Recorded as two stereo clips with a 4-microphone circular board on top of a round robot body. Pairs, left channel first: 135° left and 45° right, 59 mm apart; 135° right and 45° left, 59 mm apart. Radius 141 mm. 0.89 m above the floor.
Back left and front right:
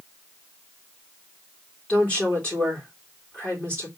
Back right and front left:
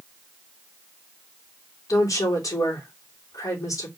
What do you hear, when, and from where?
1.9 s a woman speaking: 155° right, 3 m